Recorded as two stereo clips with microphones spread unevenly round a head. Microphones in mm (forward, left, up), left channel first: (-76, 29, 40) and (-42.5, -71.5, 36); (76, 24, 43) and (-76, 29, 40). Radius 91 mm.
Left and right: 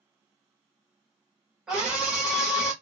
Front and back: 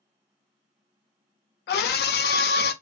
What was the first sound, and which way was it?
A scream, 15° left.